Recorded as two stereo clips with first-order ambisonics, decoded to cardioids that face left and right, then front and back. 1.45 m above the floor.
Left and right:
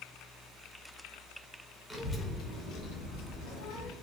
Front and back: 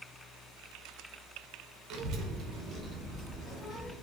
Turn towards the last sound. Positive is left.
turn(degrees=85)